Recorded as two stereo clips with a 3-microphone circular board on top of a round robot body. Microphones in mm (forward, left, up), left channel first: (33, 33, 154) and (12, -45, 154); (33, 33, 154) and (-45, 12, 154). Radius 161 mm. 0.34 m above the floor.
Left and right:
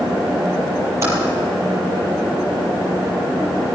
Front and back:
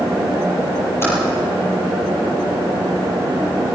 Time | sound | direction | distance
1.0 | typing on a keyboard | 50° right | 7 m